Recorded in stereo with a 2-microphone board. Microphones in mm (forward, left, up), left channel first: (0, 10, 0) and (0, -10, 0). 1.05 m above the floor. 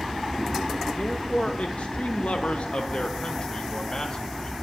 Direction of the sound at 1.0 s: 55° left (ahead or behind).